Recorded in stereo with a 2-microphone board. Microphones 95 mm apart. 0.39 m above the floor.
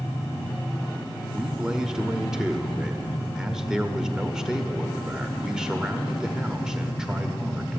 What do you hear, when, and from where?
1.3 s a man speaking: 10° right (ahead or behind), 1.1 m